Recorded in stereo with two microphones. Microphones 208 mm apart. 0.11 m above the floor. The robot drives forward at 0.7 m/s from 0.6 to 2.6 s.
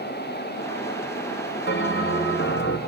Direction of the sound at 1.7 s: 60° left (ahead or behind).